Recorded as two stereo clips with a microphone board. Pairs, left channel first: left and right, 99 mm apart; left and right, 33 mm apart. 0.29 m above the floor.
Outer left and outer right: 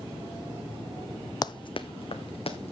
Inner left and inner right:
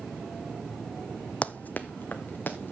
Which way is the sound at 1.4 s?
45° left (ahead or behind).